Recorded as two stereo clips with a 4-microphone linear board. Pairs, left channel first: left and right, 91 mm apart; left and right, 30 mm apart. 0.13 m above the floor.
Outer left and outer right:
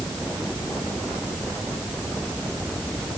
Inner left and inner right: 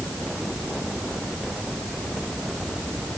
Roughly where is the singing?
No singing in this recording.